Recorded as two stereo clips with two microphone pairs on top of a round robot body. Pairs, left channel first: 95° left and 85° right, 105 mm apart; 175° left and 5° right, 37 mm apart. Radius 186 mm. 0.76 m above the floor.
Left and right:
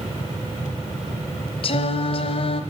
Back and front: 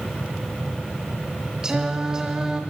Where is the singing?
65° left, 0.8 m.